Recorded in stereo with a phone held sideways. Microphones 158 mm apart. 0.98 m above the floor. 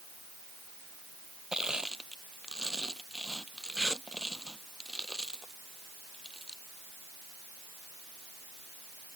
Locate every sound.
1.5 s crushing: 5° right (ahead or behind)